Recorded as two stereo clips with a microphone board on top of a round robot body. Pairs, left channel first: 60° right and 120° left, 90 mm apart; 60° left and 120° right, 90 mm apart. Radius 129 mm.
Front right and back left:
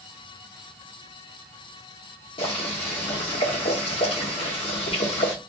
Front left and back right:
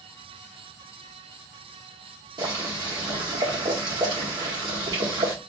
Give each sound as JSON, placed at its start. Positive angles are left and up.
{"t": 2.4, "sound": "boiling", "azimuth_deg": -75, "distance_m": 1.4}